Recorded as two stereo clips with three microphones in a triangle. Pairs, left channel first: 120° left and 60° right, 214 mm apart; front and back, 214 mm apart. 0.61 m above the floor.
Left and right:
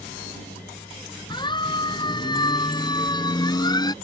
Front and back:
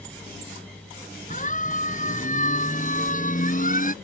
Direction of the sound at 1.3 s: 50° left.